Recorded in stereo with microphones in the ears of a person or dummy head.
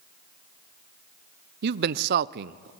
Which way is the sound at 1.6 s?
60° right (ahead or behind).